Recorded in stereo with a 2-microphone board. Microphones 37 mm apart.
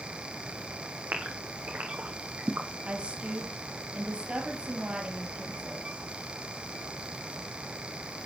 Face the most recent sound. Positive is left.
turn(degrees=-30)  # may be behind; listen again after turning